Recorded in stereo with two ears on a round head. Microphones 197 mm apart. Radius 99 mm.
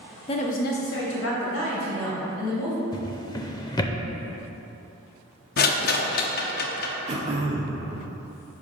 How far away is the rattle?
About 0.6 m.